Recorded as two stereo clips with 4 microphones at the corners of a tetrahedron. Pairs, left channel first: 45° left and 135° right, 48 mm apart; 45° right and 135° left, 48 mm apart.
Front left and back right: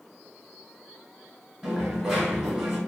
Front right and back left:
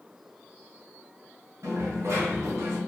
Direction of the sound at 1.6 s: 145° left.